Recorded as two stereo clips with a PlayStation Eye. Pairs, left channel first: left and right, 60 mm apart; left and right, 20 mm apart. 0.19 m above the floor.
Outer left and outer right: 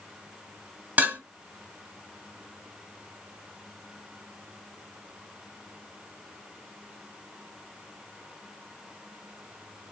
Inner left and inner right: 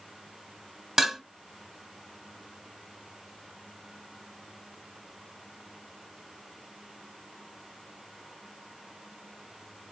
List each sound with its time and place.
1.0 s dishes clattering: 25° right (ahead or behind), 1.1 m